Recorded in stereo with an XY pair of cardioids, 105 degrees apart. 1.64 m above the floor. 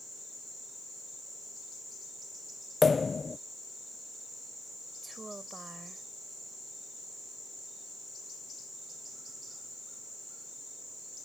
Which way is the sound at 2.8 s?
25° left.